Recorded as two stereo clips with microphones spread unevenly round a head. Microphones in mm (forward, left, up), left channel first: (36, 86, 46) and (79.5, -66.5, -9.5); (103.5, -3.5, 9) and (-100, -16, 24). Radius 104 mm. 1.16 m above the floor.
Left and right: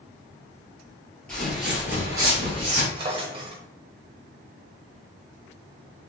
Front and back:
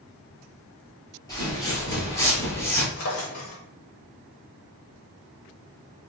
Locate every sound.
1.3 s footsteps: 70° left, 1.2 m; by 2.9 s 70° right, 1.1 m
3.0 s a drawer: 10° right, 0.8 m